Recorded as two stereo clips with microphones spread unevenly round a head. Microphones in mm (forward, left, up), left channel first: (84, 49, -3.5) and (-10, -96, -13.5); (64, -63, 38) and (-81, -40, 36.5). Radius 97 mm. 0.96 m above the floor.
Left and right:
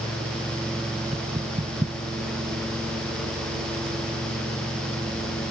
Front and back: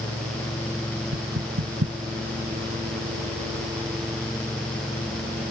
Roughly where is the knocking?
Behind.